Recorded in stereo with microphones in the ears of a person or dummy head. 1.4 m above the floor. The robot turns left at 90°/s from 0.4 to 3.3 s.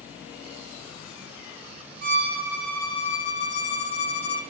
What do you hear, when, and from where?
2.0 s a violin: 115° right, 1.1 m; by 4.4 s 125° left, 1.1 m